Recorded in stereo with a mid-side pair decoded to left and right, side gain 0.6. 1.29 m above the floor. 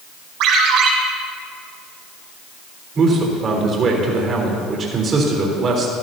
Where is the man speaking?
40° right, 3.5 m.